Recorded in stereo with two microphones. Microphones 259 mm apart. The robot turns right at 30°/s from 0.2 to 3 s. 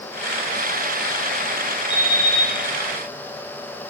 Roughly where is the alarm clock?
Left.